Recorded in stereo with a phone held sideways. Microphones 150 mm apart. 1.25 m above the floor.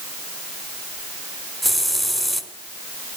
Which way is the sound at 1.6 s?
Centre (ahead or behind).